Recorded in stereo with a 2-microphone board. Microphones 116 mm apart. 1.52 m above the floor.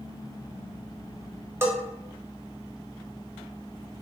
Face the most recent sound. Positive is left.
turn(degrees=-20)  # may be behind; listen again after turning